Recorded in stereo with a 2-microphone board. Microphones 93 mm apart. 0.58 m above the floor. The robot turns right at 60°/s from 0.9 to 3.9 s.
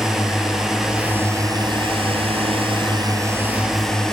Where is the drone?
175° right; by 4.1 s 5° left.